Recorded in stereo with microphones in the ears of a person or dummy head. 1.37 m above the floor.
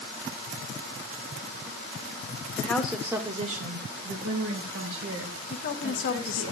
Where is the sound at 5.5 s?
45° left (ahead or behind), 0.9 m.